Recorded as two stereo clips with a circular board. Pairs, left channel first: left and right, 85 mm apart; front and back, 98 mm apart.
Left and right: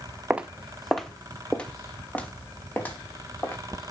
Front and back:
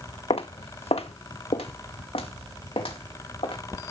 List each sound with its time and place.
0.3 s footsteps: 15° right, 0.9 m; by 3.9 s 25° left, 3.5 m